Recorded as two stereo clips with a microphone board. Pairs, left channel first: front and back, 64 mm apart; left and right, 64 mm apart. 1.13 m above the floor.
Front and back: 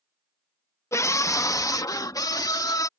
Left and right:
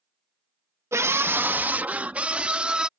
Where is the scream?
45° right; by 2.9 s 15° right.